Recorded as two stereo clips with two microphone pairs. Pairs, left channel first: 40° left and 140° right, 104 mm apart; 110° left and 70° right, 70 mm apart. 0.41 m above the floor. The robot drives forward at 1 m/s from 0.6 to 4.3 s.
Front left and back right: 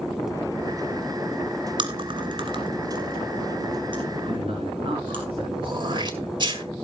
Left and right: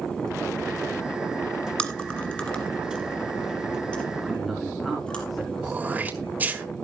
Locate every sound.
1.8 s chewing: straight behind, 1.4 m
4.2 s a man speaking: 160° right, 4 m
5.6 s throat clearing: 130° right, 1.7 m